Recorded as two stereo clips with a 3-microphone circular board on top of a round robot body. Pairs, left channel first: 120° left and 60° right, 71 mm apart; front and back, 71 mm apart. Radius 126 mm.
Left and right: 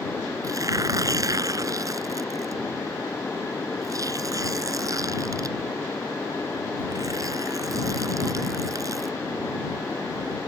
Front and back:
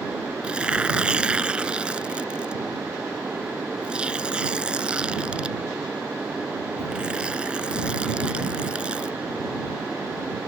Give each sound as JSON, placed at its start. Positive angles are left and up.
{"t": 0.4, "sound": "tearing paper", "azimuth_deg": -105}